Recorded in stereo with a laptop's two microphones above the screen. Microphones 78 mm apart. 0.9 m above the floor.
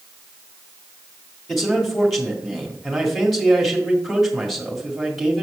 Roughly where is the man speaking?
Centre.